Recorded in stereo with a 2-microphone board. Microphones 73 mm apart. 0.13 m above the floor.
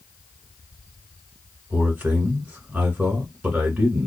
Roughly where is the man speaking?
Right.